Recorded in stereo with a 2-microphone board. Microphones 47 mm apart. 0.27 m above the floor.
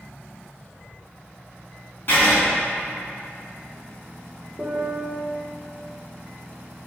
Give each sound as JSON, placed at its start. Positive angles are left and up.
{"t": 2.1, "sound": "writing", "side_deg": 50, "distance_m": 2.5}
{"t": 4.6, "sound": "a piano", "side_deg": 35, "distance_m": 2.0}